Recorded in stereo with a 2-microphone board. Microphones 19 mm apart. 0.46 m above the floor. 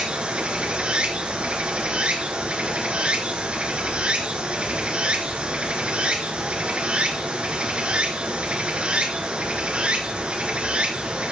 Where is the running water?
80° right, 2.5 m.